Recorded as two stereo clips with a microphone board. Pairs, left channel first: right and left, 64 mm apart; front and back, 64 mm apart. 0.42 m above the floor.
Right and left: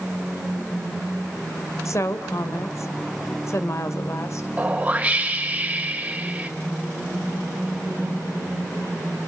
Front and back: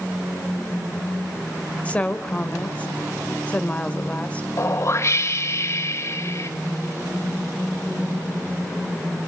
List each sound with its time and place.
1.9 s a woman speaking: 65° right, 1.5 m
4.6 s a whoosh: 25° left, 1.7 m